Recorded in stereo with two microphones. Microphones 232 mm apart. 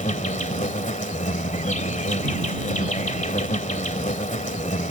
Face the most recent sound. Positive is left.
turn(degrees=30)  # may be behind; listen again after turning